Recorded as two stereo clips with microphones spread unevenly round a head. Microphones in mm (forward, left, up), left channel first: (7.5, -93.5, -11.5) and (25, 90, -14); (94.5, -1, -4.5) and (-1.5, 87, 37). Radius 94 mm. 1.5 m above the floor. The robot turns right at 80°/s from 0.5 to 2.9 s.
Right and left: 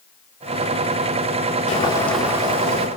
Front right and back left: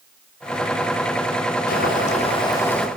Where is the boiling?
45° right, 3 m; by 2.9 s 50° left, 3 m.